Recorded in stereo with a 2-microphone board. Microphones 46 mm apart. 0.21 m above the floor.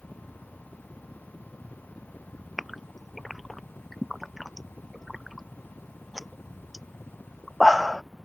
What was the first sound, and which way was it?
A helicopter, 35° left (ahead or behind).